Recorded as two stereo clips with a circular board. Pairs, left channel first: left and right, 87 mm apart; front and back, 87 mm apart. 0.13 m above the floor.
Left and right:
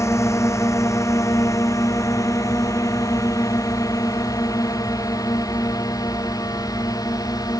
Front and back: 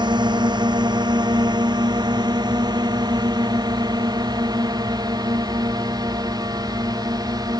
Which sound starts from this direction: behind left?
A drone, at 0.0 s.